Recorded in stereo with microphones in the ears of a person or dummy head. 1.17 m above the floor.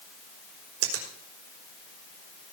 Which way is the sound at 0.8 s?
80° right.